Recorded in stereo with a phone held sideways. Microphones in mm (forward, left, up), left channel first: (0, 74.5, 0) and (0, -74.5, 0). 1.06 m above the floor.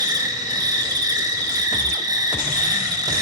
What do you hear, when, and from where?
0.0 s an insect: 25° right (ahead or behind), 0.8 m